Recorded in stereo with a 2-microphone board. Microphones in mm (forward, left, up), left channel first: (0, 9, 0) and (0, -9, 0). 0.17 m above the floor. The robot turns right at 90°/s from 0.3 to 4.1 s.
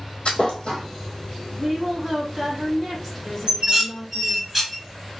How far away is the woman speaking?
About 1.2 m.